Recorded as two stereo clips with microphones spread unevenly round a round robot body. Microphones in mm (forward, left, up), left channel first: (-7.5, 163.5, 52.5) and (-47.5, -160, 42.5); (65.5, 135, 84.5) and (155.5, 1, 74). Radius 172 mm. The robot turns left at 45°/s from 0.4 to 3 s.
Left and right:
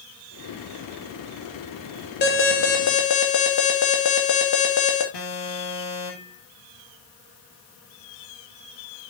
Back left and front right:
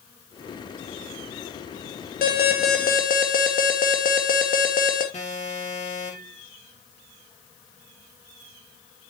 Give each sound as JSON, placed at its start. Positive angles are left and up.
{"t": 2.2, "sound": "an alarm", "azimuth_deg": 140, "distance_m": 2.5}
{"t": 5.1, "sound": "an alarm", "azimuth_deg": 80, "distance_m": 6.0}